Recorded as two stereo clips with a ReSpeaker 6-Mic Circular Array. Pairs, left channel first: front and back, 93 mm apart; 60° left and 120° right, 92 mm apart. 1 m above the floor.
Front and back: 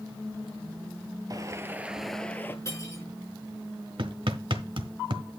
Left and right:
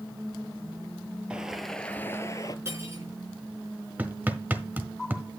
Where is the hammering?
170° left, 1.4 m.